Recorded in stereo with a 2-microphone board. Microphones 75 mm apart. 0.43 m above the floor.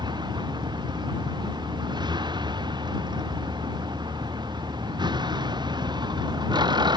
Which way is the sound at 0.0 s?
80° right.